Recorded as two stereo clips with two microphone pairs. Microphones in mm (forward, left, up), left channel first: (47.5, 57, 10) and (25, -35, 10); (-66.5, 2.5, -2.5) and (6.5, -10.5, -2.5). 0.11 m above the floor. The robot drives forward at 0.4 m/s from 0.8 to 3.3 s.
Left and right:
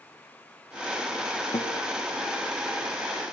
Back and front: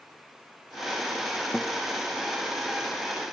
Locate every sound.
1.5 s a guitar: 90° left, 1.7 m; by 1.8 s 95° left, 1.7 m